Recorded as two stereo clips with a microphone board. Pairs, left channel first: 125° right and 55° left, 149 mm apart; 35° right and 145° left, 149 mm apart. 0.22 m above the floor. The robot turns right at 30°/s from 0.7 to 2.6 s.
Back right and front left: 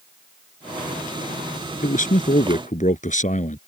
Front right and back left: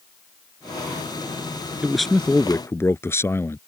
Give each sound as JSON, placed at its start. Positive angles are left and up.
{"t": 1.8, "sound": "a man speaking", "azimuth_deg": -130}